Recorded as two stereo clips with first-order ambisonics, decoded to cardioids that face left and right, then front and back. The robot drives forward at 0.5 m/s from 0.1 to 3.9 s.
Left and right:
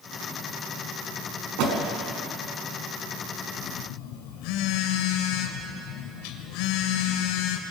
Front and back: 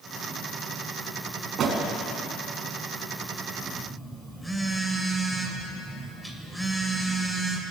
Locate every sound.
1.6 s a door slam: 120° right, 3.5 m; by 1.8 s 125° right, 3.5 m
3.6 s a phone buzzing: 85° left, 2.5 m; by 7.6 s 90° left, 2.5 m